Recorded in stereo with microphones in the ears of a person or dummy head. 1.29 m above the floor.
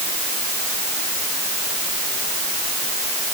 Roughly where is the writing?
No writing in this recording.